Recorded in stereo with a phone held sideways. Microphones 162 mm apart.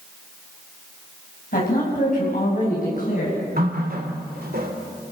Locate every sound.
1.5 s a woman speaking: 55° left (ahead or behind), 7 m
3.6 s a running tap: 70° right (ahead or behind), 2.5 m